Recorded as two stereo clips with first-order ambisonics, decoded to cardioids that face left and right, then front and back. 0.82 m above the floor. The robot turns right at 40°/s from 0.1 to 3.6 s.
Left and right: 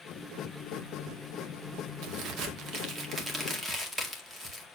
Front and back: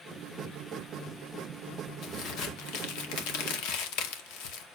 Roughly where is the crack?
Ahead right.